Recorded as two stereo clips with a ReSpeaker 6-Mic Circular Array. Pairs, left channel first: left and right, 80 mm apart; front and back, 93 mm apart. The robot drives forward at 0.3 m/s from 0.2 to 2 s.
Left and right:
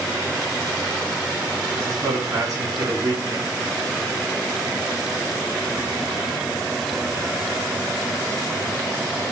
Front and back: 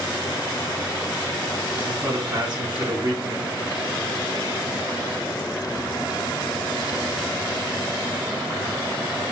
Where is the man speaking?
135° right, 2.5 m; by 3.5 s 140° right, 2.5 m.